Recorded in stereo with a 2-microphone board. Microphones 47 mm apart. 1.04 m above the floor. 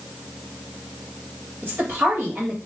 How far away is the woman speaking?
About 2.0 m.